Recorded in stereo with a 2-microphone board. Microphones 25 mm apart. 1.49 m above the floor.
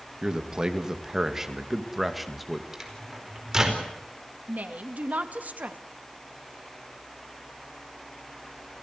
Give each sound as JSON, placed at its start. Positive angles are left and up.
{"t": 0.2, "sound": "a man speaking", "side_deg": -30, "distance_m": 2.5}
{"t": 2.7, "sound": "a microwave", "side_deg": -20, "distance_m": 4.5}
{"t": 4.5, "sound": "a woman speaking", "side_deg": -85, "distance_m": 2.5}